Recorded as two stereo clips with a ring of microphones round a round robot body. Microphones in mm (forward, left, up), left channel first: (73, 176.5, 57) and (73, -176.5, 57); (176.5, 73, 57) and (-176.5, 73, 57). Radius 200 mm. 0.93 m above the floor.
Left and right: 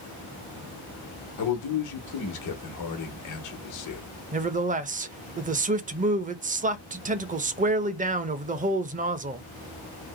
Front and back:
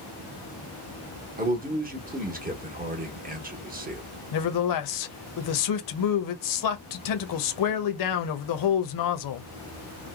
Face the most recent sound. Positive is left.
turn(degrees=-20)